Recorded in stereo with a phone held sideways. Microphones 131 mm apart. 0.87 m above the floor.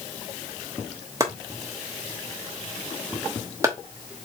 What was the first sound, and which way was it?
Chopping, 20° right (ahead or behind).